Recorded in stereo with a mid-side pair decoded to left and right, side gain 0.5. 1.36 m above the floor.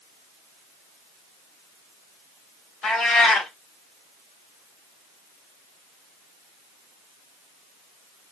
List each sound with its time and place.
2.8 s a cat meowing: 50° left, 3 m